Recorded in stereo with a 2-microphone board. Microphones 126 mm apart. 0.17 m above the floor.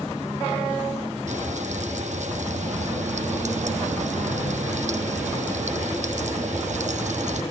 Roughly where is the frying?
Right.